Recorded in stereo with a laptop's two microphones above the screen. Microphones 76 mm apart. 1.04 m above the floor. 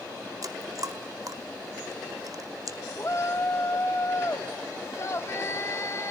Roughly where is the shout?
Left.